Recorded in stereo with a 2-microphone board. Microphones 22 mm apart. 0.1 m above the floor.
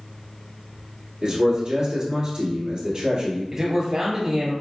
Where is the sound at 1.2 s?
35° right (ahead or behind), 1.8 m.